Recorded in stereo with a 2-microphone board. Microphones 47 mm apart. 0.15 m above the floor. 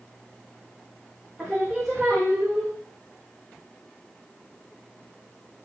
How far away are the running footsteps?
No running footsteps in this recording.